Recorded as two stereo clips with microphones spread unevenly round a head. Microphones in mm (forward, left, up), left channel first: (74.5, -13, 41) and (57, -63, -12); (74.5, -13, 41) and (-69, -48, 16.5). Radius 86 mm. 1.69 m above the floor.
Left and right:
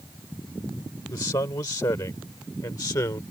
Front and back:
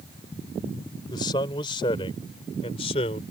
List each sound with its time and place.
1.1 s a man speaking: 80° left; by 3.2 s 70° left